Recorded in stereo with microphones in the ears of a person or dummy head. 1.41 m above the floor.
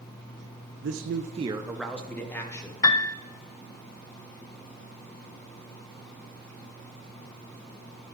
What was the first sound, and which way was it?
A man speaking, 75° right (ahead or behind).